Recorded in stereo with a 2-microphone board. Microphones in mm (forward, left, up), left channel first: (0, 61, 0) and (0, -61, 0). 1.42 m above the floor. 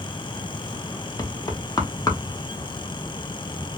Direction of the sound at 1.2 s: 30° left (ahead or behind).